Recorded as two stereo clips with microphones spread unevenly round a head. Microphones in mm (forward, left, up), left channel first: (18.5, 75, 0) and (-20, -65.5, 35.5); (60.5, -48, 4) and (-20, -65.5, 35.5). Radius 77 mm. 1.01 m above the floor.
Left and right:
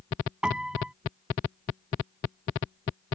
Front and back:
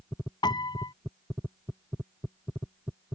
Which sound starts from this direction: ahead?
A piano, at 0.4 s.